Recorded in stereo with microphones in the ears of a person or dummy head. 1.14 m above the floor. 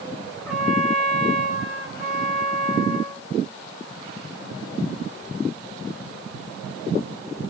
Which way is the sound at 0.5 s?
5° left (ahead or behind).